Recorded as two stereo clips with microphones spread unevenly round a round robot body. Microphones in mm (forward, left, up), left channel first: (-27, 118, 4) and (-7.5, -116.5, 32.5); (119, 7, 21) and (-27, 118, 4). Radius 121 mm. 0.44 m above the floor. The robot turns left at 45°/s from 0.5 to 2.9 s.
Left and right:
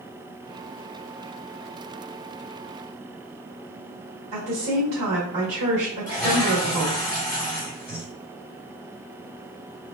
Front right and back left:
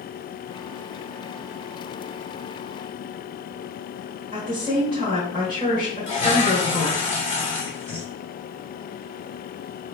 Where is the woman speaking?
110° right, 1.5 m.